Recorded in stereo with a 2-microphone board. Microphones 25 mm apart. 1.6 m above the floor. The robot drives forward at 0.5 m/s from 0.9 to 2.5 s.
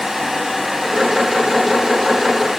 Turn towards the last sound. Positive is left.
No sound to turn to.